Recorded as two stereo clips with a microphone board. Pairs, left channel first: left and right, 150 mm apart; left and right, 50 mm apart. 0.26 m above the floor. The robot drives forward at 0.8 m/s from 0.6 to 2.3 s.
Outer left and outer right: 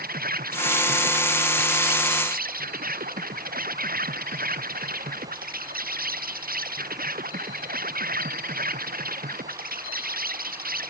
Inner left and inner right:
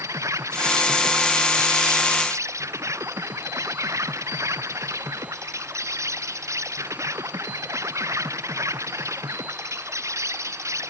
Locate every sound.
0.0 s an insect: 90° right; by 10.9 s 80° right